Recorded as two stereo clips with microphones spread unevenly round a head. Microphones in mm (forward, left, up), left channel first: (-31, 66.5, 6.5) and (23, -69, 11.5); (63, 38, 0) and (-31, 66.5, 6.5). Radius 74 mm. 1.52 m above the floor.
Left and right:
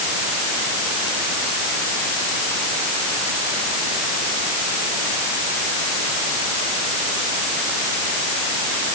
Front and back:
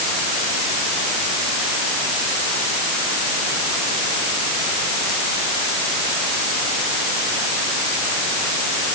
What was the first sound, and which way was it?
Only background noise.